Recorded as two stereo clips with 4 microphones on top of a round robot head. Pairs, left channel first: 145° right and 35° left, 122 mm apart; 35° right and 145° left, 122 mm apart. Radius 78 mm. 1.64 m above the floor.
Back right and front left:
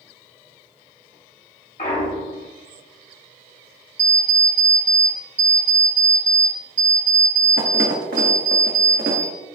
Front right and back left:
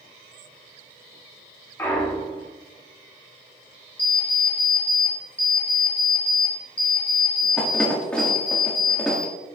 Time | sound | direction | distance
1.8 | a clunk | 105° right | 2 m
4.0 | an alarm clock | 45° left | 1.5 m